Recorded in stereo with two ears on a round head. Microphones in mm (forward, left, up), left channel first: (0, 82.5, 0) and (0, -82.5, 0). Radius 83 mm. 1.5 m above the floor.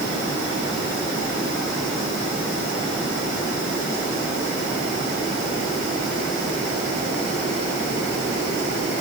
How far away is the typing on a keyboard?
No typing on a keyboard in this recording.